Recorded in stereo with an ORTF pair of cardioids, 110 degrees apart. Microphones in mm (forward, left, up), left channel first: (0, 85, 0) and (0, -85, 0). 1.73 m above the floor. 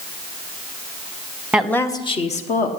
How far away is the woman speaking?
About 1.1 m.